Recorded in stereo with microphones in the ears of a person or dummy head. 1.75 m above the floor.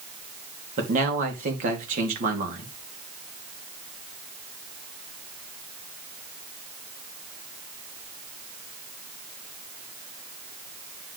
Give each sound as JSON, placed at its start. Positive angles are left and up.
{"t": 0.8, "sound": "a man speaking", "side_deg": -55, "distance_m": 2.5}